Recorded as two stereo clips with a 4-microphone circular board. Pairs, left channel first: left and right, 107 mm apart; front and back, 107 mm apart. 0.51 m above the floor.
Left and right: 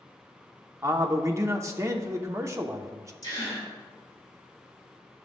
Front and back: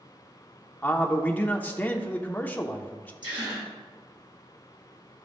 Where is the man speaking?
60° right, 0.8 m.